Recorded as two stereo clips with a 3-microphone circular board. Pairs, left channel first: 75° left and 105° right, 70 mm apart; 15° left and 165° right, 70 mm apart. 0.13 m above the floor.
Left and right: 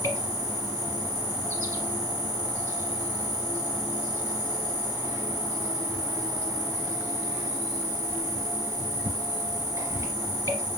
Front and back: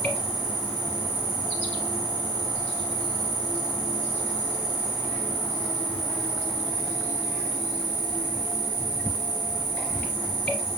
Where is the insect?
70° right, 2.5 m.